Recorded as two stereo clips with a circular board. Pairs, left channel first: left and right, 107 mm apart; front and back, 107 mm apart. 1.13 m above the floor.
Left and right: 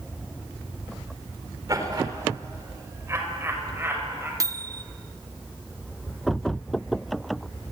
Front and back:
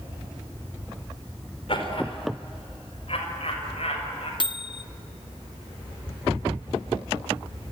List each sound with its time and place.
1.7 s laughter: 35° right, 4.5 m; by 4.3 s 20° right, 7 m
4.4 s a microwave: 35° right, 0.6 m